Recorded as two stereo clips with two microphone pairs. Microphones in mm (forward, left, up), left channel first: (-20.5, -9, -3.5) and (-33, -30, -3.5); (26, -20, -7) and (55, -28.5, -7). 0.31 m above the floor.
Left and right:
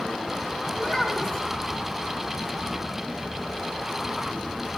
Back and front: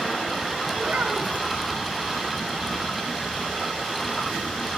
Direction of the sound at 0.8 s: Straight ahead.